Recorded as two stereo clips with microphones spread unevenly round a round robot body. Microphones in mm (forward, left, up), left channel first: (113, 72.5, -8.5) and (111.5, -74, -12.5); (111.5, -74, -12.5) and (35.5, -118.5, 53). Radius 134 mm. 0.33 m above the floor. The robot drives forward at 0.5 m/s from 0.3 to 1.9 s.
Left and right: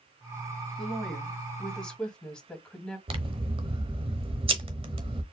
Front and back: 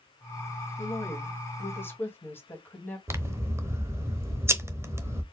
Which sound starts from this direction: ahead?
A woman speaking, at 0.8 s.